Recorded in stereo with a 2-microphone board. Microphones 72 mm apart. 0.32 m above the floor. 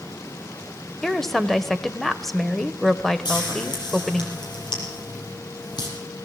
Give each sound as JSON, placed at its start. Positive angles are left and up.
{"t": 1.0, "sound": "a woman speaking", "side_deg": 5, "distance_m": 1.0}
{"t": 3.2, "sound": "frying", "side_deg": 75, "distance_m": 5.5}